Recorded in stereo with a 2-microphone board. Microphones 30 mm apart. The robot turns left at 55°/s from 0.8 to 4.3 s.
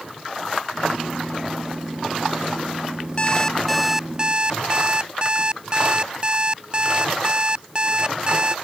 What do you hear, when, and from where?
3.2 s an alarm clock: 30° left; by 8.6 s 30° right